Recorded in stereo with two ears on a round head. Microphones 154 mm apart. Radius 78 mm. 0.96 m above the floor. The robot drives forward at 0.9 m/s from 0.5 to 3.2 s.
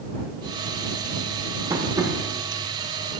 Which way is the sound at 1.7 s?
20° right (ahead or behind).